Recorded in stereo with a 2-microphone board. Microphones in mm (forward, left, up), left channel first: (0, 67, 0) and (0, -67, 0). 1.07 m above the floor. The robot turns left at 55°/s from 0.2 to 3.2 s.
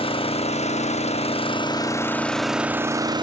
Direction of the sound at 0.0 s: 125° left.